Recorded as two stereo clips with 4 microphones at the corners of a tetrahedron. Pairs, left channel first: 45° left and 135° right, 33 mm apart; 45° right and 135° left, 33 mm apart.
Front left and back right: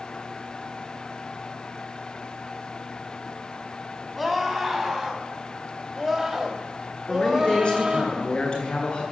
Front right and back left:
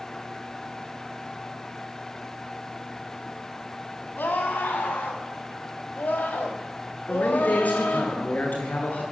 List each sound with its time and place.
4.2 s a scream: 50° right, 6.5 m; by 8.1 s 70° right, 4 m
7.1 s a man speaking: 10° right, 9.5 m